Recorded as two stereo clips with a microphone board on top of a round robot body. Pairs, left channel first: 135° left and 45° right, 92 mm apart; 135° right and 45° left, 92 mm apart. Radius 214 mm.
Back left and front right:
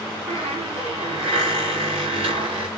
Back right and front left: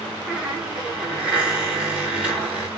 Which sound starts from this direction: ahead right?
A squeak, at 0.3 s.